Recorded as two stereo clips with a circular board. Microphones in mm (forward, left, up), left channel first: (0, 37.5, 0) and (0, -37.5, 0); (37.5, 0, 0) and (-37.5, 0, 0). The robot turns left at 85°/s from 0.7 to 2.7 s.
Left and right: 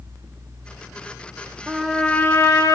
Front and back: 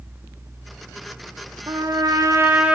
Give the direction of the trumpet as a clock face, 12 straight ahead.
6 o'clock.